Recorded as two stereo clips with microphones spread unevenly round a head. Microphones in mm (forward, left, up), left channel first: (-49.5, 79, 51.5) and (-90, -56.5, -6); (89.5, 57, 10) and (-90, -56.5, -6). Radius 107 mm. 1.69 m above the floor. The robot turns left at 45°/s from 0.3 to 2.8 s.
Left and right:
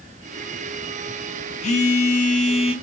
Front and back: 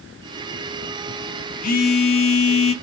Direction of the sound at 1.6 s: 80° left.